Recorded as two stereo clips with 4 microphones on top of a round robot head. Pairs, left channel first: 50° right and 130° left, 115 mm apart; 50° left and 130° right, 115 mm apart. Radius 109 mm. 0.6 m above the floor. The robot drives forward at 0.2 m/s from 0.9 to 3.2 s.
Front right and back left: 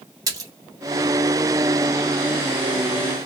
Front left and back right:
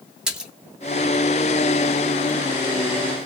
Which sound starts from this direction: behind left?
A splash, at 0.3 s.